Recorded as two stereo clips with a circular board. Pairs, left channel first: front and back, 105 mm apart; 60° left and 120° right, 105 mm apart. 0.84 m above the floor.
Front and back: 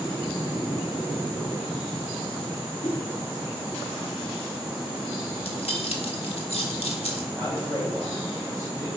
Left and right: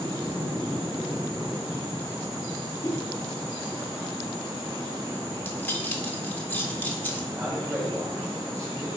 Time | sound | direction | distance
2.8 | a whoosh | straight ahead | 1.6 m
5.4 | keys jangling | 10° right | 1.5 m
7.3 | a man speaking | 70° right | 3 m